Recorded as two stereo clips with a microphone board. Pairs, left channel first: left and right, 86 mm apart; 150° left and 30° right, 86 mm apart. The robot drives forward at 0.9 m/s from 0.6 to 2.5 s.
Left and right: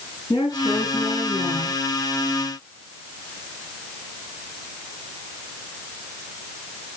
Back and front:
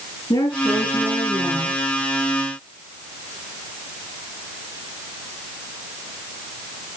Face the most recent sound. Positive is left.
turn(degrees=135)